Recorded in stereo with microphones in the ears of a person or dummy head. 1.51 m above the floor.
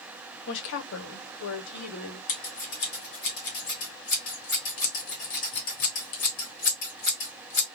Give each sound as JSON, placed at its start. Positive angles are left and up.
{"t": 0.5, "sound": "a woman speaking", "side_deg": 65, "distance_m": 0.9}
{"t": 2.3, "sound": "scissors", "side_deg": 40, "distance_m": 1.3}